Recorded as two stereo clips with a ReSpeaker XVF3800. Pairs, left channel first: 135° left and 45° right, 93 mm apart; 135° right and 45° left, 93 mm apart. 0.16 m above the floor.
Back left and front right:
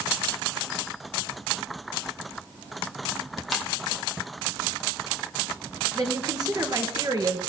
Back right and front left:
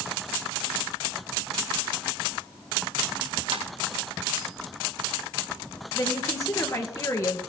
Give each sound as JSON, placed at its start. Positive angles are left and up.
{"t": 3.5, "sound": "a ringtone", "azimuth_deg": 45, "distance_m": 3.0}
{"t": 6.0, "sound": "a woman speaking", "azimuth_deg": -85, "distance_m": 2.0}